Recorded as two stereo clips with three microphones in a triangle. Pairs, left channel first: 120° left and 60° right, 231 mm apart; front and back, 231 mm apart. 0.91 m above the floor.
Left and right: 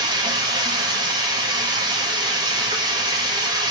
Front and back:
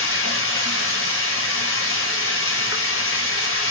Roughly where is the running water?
Ahead.